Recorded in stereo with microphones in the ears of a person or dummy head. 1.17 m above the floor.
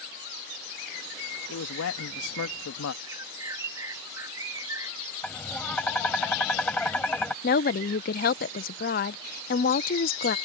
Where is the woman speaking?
45° left (ahead or behind).